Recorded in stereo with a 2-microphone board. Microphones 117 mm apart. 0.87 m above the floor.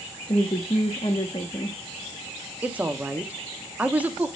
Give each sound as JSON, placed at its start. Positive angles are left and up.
{"t": 0.3, "sound": "a woman speaking", "side_deg": 45, "distance_m": 1.2}
{"t": 2.6, "sound": "a woman speaking", "side_deg": -10, "distance_m": 1.3}